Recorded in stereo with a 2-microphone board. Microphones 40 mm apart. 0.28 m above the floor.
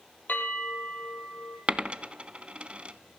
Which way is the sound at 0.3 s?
45° left (ahead or behind).